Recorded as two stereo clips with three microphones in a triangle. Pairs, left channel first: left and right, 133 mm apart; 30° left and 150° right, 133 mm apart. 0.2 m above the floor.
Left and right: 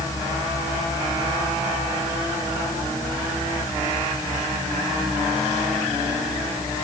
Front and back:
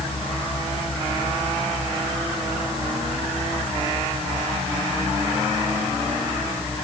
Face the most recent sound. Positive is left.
No sound to turn to.